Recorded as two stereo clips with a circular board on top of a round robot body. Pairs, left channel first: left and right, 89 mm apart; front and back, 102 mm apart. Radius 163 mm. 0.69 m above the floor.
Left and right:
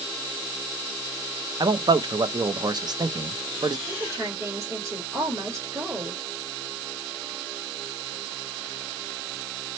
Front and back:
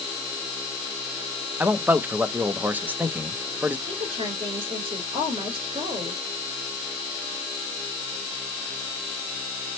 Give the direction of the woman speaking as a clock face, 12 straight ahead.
5 o'clock.